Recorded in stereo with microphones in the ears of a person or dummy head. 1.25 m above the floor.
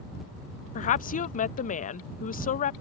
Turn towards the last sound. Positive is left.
turn(degrees=40)  # may be behind; listen again after turning